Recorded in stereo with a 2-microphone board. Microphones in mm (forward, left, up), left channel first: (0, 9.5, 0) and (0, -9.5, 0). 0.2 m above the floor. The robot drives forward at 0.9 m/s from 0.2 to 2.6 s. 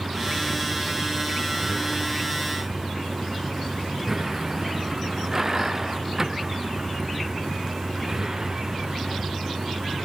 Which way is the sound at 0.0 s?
15° right (ahead or behind).